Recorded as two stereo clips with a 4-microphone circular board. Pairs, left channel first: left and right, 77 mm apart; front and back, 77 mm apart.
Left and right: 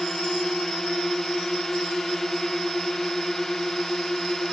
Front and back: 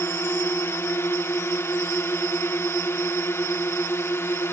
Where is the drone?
10° left.